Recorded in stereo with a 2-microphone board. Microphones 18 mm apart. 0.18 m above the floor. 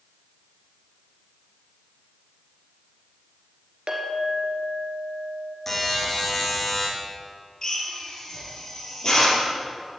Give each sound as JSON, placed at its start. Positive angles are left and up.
{"t": 3.9, "sound": "a clink", "side_deg": -60, "distance_m": 2.5}
{"t": 5.7, "sound": "a buzzer", "side_deg": 20, "distance_m": 4.5}
{"t": 7.6, "sound": "a drill", "side_deg": 30, "distance_m": 4.5}